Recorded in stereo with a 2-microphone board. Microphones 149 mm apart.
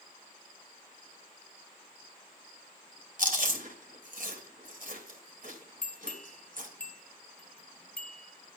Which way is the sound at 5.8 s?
10° left (ahead or behind).